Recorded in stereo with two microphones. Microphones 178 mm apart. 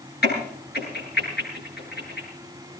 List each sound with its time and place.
0.2 s a crack: 65° left (ahead or behind), 9 m